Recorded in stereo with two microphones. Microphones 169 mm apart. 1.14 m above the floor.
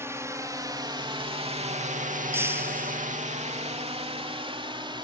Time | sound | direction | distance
0.0 | a drone | 15° right (ahead or behind) | ?
2.3 | breaking glass | 15° right (ahead or behind) | ?